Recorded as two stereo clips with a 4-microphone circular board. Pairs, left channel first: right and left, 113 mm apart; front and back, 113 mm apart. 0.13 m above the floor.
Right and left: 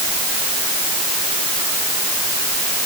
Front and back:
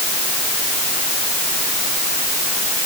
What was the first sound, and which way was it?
Only background noise.